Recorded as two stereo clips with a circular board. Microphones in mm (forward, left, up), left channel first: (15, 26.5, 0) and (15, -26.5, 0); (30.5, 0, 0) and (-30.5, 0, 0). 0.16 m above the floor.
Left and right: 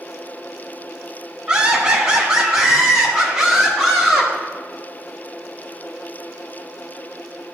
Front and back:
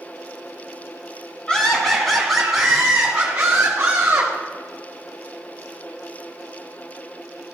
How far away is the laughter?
About 1.6 m.